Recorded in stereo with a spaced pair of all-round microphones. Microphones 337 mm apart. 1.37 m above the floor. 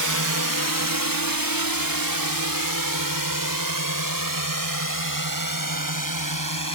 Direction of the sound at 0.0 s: 60° right (ahead or behind).